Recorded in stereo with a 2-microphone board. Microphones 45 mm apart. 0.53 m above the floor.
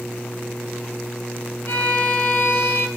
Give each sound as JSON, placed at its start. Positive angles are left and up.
{"t": 1.7, "sound": "a violin", "side_deg": 60, "distance_m": 0.6}